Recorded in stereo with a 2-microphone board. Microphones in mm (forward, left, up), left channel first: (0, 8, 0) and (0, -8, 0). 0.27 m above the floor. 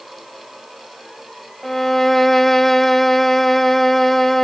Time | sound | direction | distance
1.6 | a violin | 20° left (ahead or behind) | 0.6 m